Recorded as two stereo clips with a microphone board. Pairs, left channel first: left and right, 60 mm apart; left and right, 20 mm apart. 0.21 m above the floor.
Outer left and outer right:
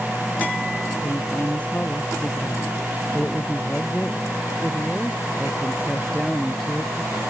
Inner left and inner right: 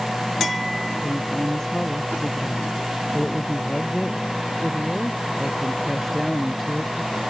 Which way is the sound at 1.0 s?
25° left (ahead or behind).